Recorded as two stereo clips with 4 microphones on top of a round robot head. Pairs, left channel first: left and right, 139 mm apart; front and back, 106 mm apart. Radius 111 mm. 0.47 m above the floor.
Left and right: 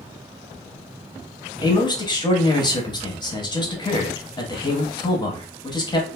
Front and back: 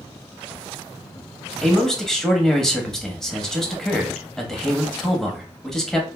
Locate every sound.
1.6 s a man speaking: 85° left, 0.9 m